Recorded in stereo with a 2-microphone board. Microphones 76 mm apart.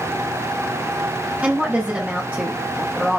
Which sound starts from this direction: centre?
A woman speaking, at 1.4 s.